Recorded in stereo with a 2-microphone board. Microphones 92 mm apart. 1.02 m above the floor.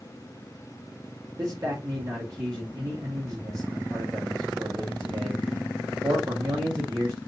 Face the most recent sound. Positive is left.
turn(degrees=-40)  # may be behind; listen again after turning